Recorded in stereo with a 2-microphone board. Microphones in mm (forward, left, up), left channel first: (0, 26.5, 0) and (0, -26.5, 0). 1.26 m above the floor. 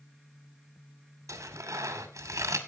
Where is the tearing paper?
80° right, 2.5 m.